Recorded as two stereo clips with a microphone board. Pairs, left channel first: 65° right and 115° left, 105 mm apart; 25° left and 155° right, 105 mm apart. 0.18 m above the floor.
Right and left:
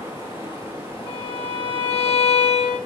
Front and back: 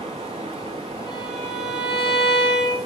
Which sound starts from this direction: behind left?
A violin, at 1.1 s.